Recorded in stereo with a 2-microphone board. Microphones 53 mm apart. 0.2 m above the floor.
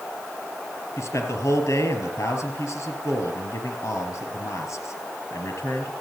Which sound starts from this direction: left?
A man speaking, at 1.0 s.